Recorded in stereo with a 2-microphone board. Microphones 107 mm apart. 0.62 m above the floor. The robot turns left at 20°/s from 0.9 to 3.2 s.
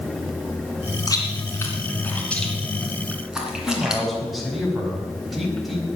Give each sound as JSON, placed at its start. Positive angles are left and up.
{"t": 1.1, "sound": "chewing", "side_deg": 35, "distance_m": 3.0}
{"t": 3.7, "sound": "a man speaking", "side_deg": 0, "distance_m": 5.0}